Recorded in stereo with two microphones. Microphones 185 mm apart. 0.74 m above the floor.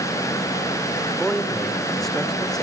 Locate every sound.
1.1 s a man speaking: centre (ahead or behind), 2 m